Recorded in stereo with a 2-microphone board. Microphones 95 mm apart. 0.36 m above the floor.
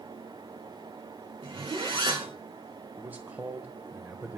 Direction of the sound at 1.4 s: 60° right (ahead or behind).